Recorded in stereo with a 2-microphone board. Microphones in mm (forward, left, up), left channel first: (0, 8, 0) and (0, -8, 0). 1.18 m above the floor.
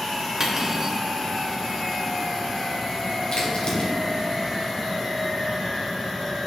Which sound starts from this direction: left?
A crack, at 3.3 s.